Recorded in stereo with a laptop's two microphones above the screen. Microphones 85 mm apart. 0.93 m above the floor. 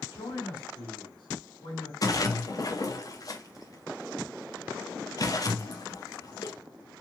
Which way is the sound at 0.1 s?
70° left (ahead or behind).